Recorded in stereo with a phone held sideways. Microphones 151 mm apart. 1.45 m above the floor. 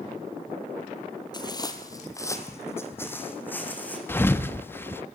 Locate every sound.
1.3 s footsteps: 30° left (ahead or behind), 1.8 m; by 4.0 s 10° left (ahead or behind), 4 m
4.1 s a thud: 15° left (ahead or behind), 0.9 m